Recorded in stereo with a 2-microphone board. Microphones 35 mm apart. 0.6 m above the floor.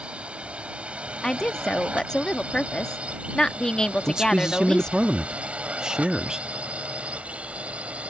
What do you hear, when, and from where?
0.0 s a drone: 30° right (ahead or behind); by 8.1 s 35° right (ahead or behind)
1.2 s a woman speaking: 20° left (ahead or behind)
4.1 s a man speaking: 20° right (ahead or behind)